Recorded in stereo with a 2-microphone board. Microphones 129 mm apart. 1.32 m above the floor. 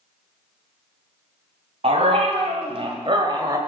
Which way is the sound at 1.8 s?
60° right (ahead or behind).